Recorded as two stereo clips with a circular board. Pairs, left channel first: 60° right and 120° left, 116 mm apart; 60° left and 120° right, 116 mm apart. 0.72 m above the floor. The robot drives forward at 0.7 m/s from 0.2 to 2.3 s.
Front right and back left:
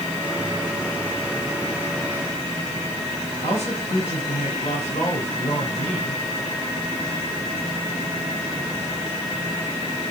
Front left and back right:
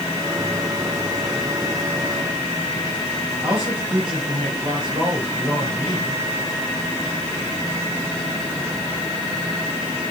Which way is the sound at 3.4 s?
75° right.